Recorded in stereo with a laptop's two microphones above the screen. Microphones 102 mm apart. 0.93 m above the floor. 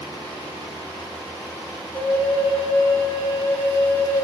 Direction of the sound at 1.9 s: 30° left (ahead or behind).